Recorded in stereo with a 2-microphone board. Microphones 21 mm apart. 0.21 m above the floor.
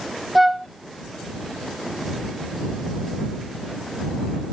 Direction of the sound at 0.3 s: 5° right (ahead or behind).